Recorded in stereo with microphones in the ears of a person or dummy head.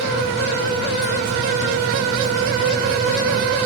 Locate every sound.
Only background noise.